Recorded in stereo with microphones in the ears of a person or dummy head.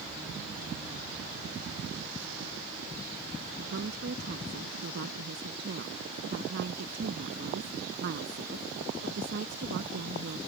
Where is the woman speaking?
55° right (ahead or behind).